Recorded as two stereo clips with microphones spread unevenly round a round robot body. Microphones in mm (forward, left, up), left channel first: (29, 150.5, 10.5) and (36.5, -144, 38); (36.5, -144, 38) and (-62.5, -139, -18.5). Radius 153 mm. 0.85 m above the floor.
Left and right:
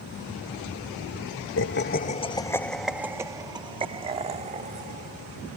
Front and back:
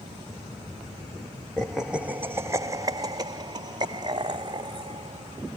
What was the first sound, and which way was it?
Laughter, 110° left.